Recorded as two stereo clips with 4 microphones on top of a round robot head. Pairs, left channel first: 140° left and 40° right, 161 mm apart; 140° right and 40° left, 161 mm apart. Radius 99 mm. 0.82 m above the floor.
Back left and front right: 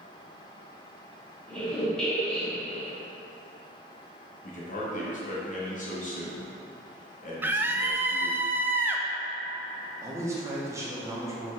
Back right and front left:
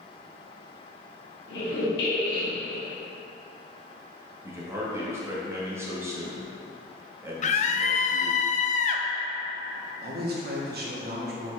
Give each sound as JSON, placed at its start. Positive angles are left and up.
{"t": 1.5, "sound": "a squeak", "azimuth_deg": -135, "distance_m": 1.6}
{"t": 4.4, "sound": "a man speaking", "azimuth_deg": 110, "distance_m": 1.5}
{"t": 7.4, "sound": "a scream", "azimuth_deg": -115, "distance_m": 0.6}
{"t": 10.0, "sound": "a man speaking", "azimuth_deg": 35, "distance_m": 1.3}